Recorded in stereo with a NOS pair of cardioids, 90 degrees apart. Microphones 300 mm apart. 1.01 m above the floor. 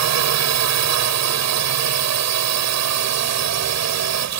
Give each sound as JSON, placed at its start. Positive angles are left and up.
{"t": 0.0, "sound": "a drone", "azimuth_deg": -65}